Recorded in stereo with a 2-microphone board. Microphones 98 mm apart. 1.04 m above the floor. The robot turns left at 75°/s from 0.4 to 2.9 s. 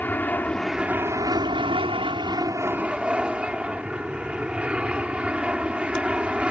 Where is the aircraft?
20° left; by 6.5 s 165° right.